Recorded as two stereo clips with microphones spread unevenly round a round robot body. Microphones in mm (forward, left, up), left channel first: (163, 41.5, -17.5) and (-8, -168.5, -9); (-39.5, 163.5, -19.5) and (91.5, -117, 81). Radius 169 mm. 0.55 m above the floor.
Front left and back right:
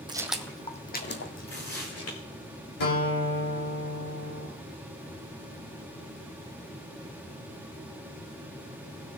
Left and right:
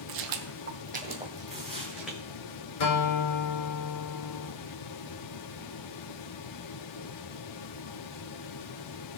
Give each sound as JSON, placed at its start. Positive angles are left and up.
{"t": 0.1, "sound": "footsteps", "azimuth_deg": -55, "distance_m": 1.4}
{"t": 1.5, "sound": "tearing paper", "azimuth_deg": 25, "distance_m": 6.0}
{"t": 2.8, "sound": "a guitar", "azimuth_deg": 85, "distance_m": 2.5}